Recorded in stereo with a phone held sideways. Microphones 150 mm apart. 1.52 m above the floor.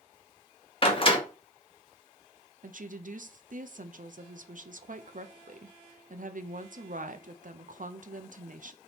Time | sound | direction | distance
0.8 | a door slam | 35° left (ahead or behind) | 1.0 m
2.6 | a woman speaking | 65° right (ahead or behind) | 0.5 m